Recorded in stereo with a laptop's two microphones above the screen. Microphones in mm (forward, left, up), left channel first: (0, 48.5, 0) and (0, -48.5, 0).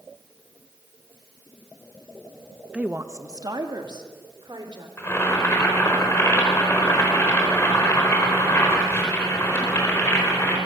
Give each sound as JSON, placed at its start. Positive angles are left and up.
{"t": 2.7, "sound": "a woman speaking", "side_deg": -10, "distance_m": 0.7}
{"t": 5.0, "sound": "boiling", "side_deg": 30, "distance_m": 4.5}